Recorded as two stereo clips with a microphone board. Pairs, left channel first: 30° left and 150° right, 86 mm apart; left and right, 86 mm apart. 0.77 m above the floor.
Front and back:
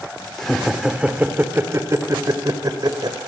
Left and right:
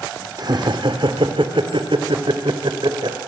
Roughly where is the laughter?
Ahead right.